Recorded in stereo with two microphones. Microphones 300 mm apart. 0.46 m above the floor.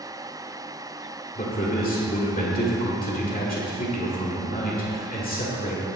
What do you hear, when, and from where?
1.4 s a man speaking: 30° left (ahead or behind), 1.5 m